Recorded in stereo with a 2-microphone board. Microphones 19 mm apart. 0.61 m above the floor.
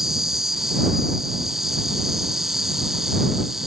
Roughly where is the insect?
Centre.